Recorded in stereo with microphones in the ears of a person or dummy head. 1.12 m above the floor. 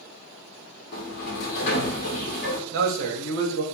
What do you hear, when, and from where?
0.9 s a sliding door: 60° left (ahead or behind), 0.6 m
2.7 s a man speaking: 65° right (ahead or behind), 0.7 m